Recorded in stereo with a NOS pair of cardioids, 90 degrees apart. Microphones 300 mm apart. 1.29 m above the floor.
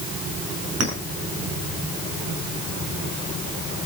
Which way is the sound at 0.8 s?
60° right.